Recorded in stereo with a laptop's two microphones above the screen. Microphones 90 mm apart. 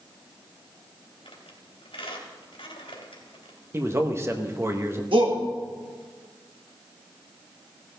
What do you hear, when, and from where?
1.2 s a squeak: 75° left (ahead or behind), 3 m
3.7 s a man speaking: 30° right (ahead or behind), 1.0 m
5.1 s a shout: 65° right (ahead or behind), 2.0 m